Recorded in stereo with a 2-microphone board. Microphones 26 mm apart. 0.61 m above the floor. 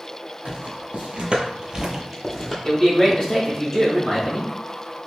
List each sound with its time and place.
0.5 s footsteps: 70° right (ahead or behind), 1.4 m; by 2.5 s 5° left (ahead or behind), 1.2 m
2.6 s a man speaking: 10° left (ahead or behind), 1.6 m